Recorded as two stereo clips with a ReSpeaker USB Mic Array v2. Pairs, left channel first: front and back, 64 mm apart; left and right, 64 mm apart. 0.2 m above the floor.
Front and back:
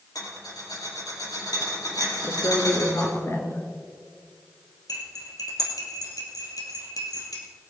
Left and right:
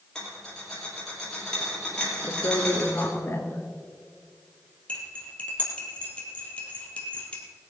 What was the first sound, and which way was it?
A rattle, 10° left.